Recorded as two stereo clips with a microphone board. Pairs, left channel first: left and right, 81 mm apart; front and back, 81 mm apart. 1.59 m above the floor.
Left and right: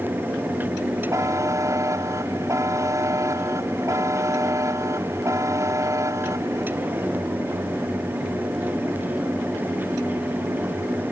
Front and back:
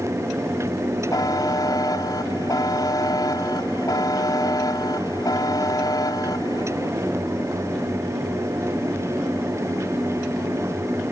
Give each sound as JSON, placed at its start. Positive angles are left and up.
{"t": 1.1, "sound": "a buzzer", "azimuth_deg": -40}